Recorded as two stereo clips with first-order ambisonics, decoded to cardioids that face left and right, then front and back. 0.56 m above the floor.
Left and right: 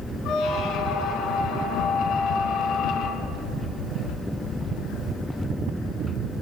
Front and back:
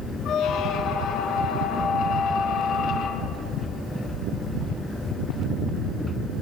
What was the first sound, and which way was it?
A squeak, 50° left.